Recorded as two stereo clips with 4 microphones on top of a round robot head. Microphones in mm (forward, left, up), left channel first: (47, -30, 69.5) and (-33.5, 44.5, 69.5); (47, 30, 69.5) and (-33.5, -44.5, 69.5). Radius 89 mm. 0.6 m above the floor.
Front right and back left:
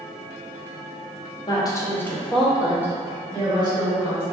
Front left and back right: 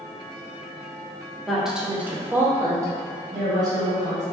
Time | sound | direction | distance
1.5 | a woman speaking | 50° right | 0.8 m